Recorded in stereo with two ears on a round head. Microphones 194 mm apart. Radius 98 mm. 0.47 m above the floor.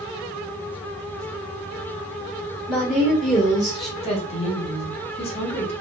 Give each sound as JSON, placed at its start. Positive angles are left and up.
{"t": 2.7, "sound": "a woman speaking", "side_deg": 5, "distance_m": 1.5}
{"t": 4.0, "sound": "a woman speaking", "side_deg": 30, "distance_m": 0.8}